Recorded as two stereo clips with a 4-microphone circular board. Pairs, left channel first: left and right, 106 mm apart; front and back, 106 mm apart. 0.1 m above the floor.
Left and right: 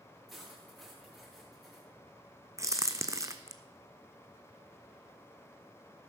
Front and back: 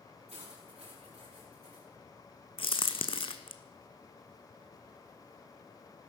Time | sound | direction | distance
0.3 | cutlery clinking | straight behind | 7 m
2.6 | a crack | 30° right | 1.0 m